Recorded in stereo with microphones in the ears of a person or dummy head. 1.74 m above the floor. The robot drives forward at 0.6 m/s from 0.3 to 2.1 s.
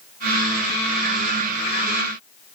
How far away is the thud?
No thud in this recording.